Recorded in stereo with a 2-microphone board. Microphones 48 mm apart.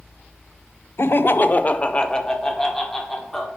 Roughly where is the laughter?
Left.